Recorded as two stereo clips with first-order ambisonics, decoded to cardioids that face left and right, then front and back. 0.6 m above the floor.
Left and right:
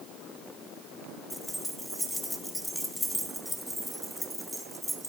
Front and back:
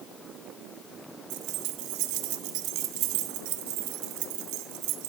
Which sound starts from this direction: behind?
Keys jangling, at 1.3 s.